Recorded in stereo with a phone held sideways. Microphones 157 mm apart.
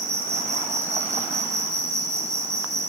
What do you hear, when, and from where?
0.0 s an insect: 45° right (ahead or behind), 0.9 m